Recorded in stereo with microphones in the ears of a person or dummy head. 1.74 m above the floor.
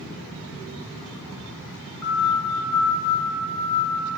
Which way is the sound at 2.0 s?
80° left.